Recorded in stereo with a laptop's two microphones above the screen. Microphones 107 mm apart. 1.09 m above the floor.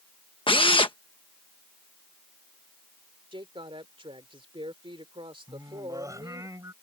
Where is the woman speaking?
55° right (ahead or behind).